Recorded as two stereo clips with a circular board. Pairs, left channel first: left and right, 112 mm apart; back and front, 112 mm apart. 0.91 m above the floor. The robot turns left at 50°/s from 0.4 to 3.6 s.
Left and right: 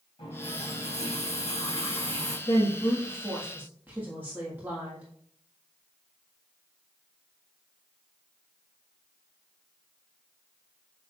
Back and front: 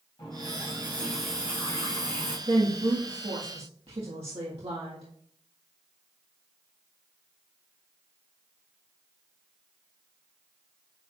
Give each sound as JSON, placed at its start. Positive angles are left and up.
{"t": 0.2, "sound": "a running tap", "azimuth_deg": 130, "distance_m": 3.5}
{"t": 2.5, "sound": "a woman speaking", "azimuth_deg": 40, "distance_m": 1.6}